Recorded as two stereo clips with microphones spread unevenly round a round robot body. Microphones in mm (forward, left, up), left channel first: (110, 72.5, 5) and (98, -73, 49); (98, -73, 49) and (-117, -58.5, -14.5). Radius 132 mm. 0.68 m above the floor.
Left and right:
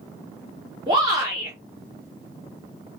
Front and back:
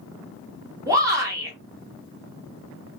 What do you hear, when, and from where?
0.9 s a shout: 165° right, 1.1 m